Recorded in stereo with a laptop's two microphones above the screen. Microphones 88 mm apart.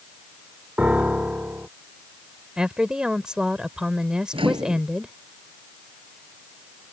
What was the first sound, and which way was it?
A piano, 15° right (ahead or behind).